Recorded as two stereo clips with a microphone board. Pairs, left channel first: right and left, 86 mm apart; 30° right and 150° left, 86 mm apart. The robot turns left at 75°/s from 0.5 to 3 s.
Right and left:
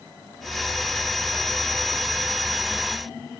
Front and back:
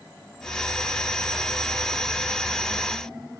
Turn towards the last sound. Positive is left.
No sound to turn to.